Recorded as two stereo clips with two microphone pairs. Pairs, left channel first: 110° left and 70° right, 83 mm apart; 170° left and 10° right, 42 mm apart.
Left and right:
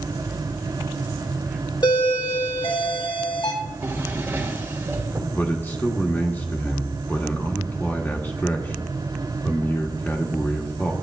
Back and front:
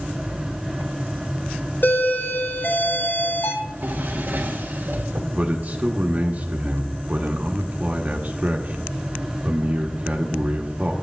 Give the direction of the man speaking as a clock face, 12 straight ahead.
11 o'clock.